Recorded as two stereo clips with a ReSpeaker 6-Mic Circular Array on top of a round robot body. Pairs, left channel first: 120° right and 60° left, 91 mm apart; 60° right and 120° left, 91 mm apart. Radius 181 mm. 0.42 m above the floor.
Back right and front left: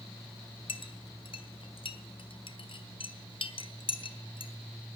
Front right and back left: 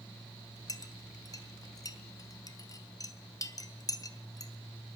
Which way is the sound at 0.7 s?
110° right.